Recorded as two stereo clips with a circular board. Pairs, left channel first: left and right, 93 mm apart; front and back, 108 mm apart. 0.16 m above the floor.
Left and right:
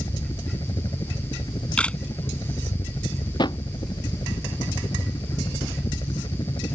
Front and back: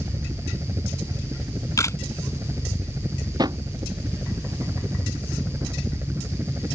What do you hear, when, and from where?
0.0 s a helicopter: 125° left; by 6.8 s 115° left
1.8 s a camera shutter: 25° left
3.4 s a drawer: 130° left